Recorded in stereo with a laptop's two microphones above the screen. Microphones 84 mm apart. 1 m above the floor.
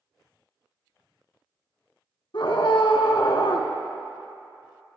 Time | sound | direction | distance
2.3 | a scream | 65° left (ahead or behind) | 2.5 m